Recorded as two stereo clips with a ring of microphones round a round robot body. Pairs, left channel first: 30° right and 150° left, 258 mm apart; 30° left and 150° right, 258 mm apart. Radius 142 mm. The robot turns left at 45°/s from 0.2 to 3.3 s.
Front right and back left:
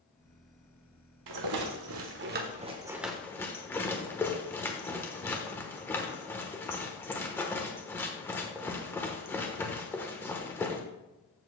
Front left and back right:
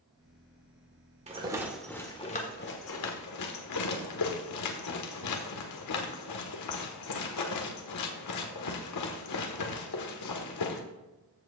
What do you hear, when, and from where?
1.3 s a rattle: 145° left, 1.2 m; by 10.8 s 50° left, 1.2 m